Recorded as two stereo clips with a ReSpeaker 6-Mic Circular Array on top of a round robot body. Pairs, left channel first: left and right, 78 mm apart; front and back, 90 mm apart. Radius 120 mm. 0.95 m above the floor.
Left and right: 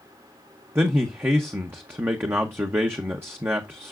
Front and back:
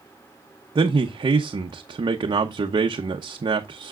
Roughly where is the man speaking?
Behind right.